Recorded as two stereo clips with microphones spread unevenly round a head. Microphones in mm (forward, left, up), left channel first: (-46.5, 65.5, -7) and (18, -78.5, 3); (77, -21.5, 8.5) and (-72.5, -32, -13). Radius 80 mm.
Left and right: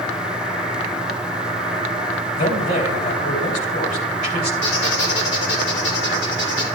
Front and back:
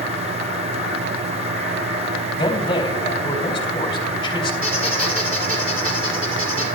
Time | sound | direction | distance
2.4 | a man speaking | 70° left | 3 m
4.6 | a squeak | 100° left | 4 m